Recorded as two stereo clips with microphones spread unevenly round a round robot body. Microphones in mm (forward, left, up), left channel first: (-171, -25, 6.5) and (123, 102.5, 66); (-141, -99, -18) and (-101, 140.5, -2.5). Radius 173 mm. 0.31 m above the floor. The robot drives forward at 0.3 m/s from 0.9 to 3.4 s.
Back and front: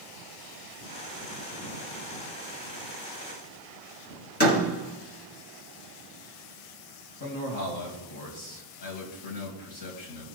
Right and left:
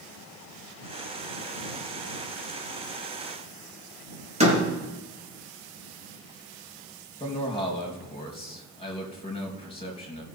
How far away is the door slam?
About 4.5 m.